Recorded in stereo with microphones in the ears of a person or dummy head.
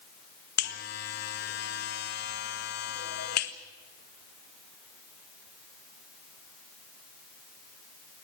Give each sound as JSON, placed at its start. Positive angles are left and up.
{"t": 0.6, "sound": "a buzzer", "side_deg": 60, "distance_m": 1.6}